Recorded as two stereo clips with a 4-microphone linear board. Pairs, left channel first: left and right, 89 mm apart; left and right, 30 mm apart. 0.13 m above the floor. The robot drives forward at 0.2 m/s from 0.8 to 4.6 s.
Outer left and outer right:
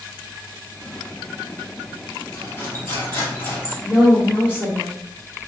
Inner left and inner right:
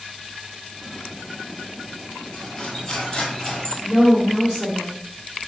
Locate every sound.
2.3 s cutlery clinking: 25° left (ahead or behind), 1.8 m; by 3.7 s 20° left (ahead or behind), 2 m
3.8 s a woman speaking: 10° right (ahead or behind), 1.8 m